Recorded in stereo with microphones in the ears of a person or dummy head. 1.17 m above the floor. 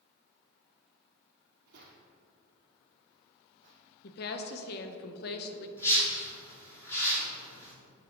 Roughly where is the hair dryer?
I don't hear a hair dryer.